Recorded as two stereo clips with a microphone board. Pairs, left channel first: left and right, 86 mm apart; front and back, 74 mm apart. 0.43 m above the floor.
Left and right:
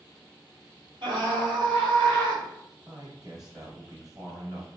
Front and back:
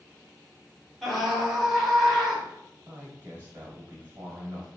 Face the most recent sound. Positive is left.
turn(degrees=-125)